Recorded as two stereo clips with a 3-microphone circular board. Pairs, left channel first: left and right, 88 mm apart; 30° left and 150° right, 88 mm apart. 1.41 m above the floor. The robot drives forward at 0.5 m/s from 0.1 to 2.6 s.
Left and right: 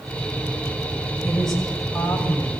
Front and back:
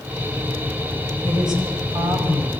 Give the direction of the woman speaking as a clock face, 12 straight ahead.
6 o'clock.